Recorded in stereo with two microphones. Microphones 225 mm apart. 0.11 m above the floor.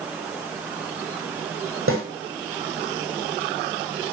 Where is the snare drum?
70° right (ahead or behind), 6.5 m.